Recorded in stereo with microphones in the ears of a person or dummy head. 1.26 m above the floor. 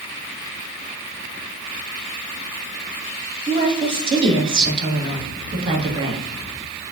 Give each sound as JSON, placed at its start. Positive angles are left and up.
{"t": 3.5, "sound": "a woman speaking", "side_deg": -30, "distance_m": 1.3}